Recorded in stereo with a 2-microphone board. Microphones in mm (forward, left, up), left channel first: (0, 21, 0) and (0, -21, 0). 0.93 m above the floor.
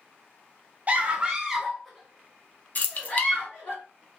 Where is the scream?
35° right (ahead or behind), 0.9 m; by 3.8 s 30° left (ahead or behind), 1.7 m.